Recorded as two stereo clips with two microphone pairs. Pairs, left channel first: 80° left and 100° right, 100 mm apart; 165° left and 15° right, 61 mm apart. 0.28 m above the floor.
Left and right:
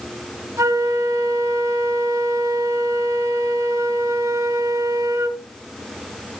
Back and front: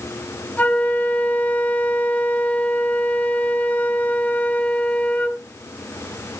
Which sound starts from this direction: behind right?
A flute, at 0.6 s.